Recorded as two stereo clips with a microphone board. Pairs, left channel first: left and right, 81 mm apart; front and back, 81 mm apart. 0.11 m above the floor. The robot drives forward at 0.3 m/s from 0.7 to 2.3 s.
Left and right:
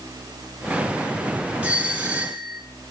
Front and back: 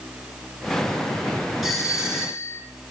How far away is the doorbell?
About 1.6 m.